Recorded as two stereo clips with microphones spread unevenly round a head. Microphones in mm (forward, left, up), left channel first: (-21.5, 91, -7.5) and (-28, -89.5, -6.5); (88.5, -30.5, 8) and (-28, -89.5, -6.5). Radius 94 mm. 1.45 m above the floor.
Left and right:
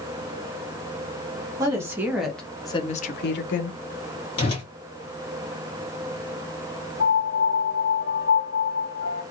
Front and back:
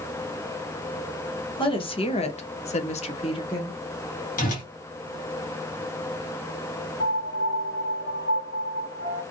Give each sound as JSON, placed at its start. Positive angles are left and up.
{"t": 1.6, "sound": "a woman speaking", "azimuth_deg": -20, "distance_m": 1.1}
{"t": 4.4, "sound": "a whoosh", "azimuth_deg": 25, "distance_m": 1.4}
{"t": 7.0, "sound": "a piano", "azimuth_deg": 55, "distance_m": 1.1}